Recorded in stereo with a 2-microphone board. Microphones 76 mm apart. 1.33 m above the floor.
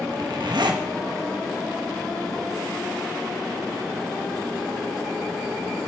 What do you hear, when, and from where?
0.1 s a zipper: 70° right (ahead or behind), 1.1 m